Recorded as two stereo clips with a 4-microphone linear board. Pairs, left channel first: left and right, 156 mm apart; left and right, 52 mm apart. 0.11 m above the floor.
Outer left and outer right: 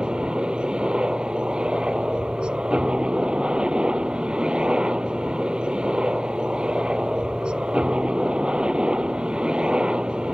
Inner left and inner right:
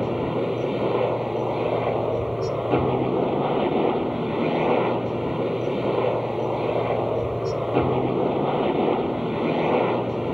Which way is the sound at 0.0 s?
5° right (ahead or behind).